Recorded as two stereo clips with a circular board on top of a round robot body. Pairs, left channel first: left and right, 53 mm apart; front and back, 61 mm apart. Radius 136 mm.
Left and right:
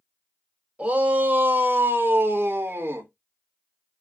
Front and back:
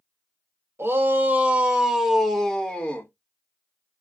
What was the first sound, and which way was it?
A shout, 140° right.